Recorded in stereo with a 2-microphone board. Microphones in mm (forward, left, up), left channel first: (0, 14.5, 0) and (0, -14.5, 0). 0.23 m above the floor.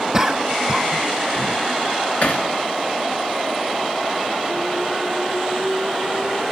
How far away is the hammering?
About 3 m.